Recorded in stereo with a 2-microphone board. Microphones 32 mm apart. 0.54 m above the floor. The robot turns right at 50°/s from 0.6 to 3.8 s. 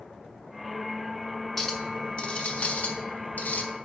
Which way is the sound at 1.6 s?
10° left.